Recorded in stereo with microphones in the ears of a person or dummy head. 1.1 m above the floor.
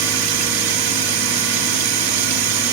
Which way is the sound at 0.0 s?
85° right.